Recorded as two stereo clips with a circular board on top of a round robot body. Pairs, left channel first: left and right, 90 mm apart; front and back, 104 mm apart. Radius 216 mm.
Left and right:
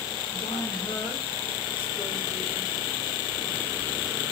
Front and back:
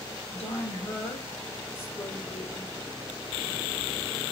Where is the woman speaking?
65° left, 3 m; by 2.8 s 75° left, 1.8 m.